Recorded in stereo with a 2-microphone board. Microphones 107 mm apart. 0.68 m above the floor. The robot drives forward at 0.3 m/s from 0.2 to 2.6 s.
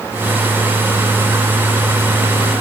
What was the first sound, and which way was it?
Only background noise.